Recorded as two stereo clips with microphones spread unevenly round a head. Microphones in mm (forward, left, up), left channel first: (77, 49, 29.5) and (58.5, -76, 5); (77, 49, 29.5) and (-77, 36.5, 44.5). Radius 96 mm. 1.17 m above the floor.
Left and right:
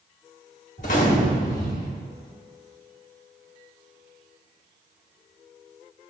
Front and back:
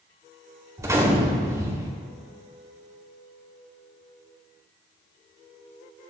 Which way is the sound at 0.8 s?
120° left.